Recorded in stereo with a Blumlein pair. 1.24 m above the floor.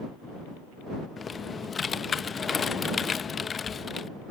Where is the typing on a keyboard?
15° left.